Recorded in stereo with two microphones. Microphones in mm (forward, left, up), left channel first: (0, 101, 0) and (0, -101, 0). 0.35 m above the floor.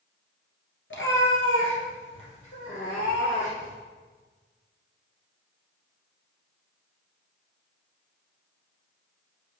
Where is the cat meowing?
80° left, 1.3 m.